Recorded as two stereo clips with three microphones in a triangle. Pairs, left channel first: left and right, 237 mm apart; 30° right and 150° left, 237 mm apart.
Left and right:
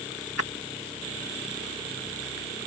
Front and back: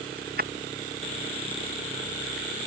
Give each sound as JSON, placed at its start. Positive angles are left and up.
{"t": 0.2, "sound": "keys jangling", "azimuth_deg": 100}